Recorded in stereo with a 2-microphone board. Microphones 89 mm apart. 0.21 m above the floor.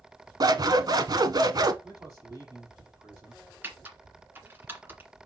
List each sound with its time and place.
0.4 s scissors: 50° right (ahead or behind), 0.8 m
1.8 s a man speaking: 35° right (ahead or behind), 5 m
3.6 s typing on a keyboard: 20° right (ahead or behind), 1.9 m